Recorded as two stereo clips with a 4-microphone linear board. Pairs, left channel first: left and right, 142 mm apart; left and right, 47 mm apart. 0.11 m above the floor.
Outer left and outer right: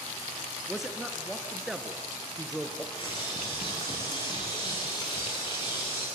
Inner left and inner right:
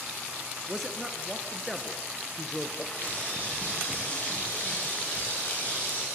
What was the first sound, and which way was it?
A man speaking, centre (ahead or behind).